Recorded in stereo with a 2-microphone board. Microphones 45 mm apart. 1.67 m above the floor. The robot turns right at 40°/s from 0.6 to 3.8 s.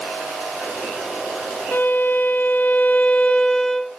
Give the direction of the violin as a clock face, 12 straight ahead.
9 o'clock.